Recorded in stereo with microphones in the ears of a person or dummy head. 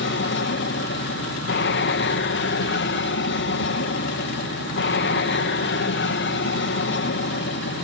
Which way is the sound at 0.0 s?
55° left (ahead or behind).